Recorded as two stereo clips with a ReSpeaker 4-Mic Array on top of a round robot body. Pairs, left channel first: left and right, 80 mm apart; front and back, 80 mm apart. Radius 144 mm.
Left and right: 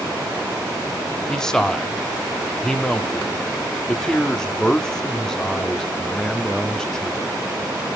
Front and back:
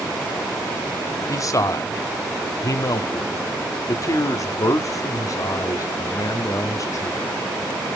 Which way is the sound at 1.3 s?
10° left.